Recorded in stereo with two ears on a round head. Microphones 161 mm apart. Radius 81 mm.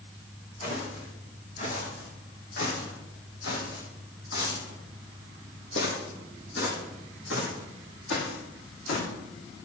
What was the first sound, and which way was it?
Footsteps, 45° left (ahead or behind).